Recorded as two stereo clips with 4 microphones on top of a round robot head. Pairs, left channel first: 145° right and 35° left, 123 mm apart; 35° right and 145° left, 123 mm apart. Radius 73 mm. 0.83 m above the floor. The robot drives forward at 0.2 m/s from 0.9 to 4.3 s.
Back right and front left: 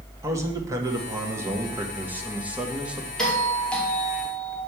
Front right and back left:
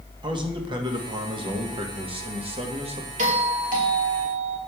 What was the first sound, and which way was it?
A man speaking, 100° left.